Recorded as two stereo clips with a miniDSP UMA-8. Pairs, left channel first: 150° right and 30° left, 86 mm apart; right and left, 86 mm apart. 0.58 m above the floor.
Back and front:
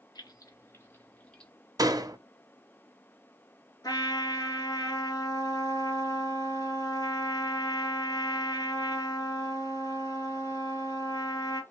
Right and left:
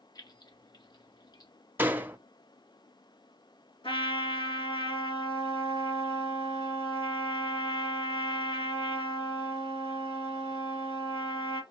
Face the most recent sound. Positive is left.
turn(degrees=-105)